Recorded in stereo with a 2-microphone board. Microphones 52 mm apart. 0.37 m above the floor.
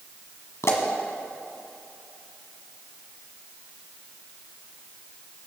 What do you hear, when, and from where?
0.6 s a pop: 70° left (ahead or behind), 1.8 m